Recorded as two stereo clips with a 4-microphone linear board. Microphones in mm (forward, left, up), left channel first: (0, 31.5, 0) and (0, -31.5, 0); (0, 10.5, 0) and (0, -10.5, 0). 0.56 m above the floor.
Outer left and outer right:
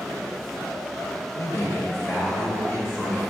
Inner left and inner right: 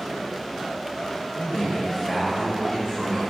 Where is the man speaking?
50° left (ahead or behind), 1.2 m; by 3.2 s 35° left (ahead or behind), 3.5 m.